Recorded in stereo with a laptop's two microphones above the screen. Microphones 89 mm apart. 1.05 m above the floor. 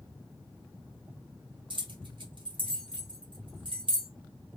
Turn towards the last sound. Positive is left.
turn(degrees=-65)  # may be behind; listen again after turning